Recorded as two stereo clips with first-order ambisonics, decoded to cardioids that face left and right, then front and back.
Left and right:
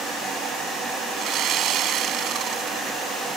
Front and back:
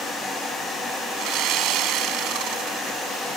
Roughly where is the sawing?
Behind right.